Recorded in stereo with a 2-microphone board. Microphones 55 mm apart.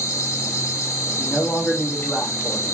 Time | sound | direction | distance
0.0 | an insect | 70° left (ahead or behind) | 0.8 m
1.2 | a man speaking | 25° left (ahead or behind) | 1.2 m